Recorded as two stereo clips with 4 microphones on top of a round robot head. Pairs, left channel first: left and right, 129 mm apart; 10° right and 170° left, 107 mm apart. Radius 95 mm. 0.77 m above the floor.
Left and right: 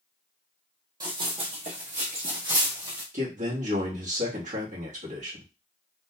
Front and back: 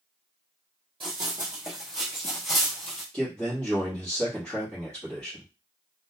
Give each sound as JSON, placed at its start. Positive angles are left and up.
{"t": 1.0, "sound": "running footsteps", "azimuth_deg": -140, "distance_m": 1.0}
{"t": 3.1, "sound": "a man speaking", "azimuth_deg": -85, "distance_m": 1.1}